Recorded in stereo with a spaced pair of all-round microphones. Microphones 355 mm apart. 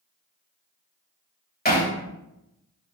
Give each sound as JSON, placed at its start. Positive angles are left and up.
{"t": 1.6, "sound": "hammering", "side_deg": 25, "distance_m": 2.5}